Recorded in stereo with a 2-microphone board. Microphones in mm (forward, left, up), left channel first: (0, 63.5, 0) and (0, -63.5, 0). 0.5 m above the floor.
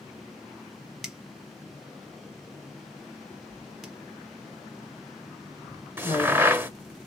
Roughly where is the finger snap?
Centre.